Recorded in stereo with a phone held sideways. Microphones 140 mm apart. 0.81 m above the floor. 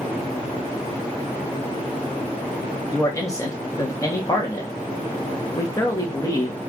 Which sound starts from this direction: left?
A man speaking, at 2.9 s.